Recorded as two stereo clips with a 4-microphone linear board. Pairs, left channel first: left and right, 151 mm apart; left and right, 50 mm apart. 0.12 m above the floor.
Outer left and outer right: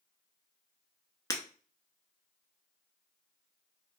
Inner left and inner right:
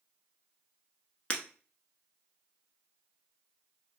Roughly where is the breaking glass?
Left.